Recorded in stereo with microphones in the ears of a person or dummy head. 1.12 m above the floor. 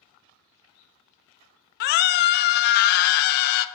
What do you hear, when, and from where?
1.8 s a scream: 55° left (ahead or behind), 0.5 m